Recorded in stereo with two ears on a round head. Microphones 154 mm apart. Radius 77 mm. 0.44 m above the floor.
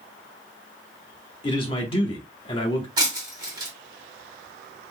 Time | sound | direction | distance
1.4 | a man speaking | 35° left (ahead or behind) | 1.0 m
3.0 | breaking glass | 25° right (ahead or behind) | 1.4 m